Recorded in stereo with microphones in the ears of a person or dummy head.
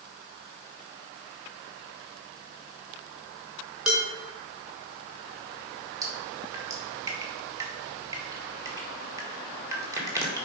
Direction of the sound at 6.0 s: 15° right (ahead or behind).